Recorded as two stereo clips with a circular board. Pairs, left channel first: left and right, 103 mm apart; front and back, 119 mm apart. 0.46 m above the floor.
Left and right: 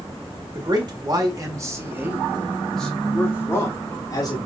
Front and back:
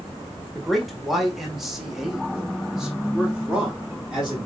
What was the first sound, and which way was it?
A man speaking, 90° right.